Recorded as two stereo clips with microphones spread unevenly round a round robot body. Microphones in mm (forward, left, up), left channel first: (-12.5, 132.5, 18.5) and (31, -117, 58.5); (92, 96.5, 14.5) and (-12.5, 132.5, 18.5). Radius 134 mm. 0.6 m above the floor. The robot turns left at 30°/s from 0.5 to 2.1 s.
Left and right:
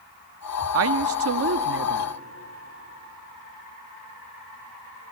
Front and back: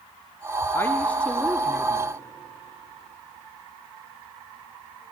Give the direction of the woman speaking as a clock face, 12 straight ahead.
3 o'clock.